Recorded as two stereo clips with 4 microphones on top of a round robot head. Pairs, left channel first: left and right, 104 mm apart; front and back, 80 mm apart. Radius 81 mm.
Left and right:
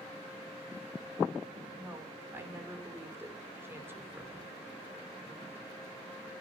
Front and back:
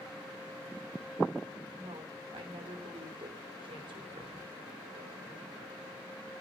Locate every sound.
1.8 s a woman speaking: 160° right, 4 m